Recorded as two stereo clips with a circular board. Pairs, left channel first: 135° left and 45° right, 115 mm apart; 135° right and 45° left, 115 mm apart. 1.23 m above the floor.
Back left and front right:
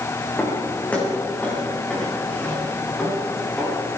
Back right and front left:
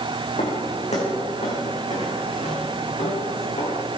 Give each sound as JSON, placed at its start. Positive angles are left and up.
{"t": 0.4, "sound": "footsteps", "azimuth_deg": -150, "distance_m": 5.5}